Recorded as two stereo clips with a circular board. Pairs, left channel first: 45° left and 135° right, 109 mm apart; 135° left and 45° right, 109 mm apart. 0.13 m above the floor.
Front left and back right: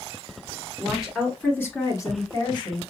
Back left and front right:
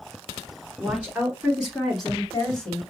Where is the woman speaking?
75° right, 1.4 m; by 2.8 s 55° left, 1.9 m.